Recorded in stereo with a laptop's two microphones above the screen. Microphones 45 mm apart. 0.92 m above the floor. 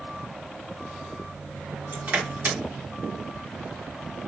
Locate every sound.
1.9 s crushing: 40° right (ahead or behind), 1.4 m